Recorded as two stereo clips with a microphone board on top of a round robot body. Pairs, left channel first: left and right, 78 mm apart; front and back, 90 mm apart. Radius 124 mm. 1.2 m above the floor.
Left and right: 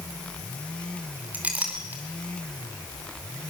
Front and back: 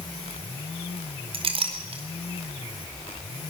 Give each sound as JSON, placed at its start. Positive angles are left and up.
{"t": 1.3, "sound": "a clink", "azimuth_deg": -165, "distance_m": 2.5}